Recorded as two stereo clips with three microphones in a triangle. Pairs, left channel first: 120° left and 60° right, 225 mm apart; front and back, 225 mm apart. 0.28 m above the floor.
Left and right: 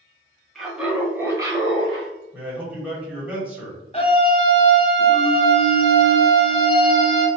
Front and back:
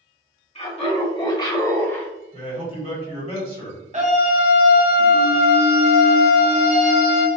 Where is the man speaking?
20° left, 1.8 m.